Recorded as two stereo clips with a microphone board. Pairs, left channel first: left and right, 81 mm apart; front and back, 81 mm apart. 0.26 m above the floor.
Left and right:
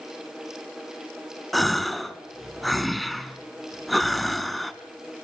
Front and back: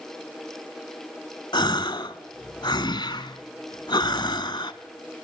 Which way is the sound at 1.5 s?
Straight ahead.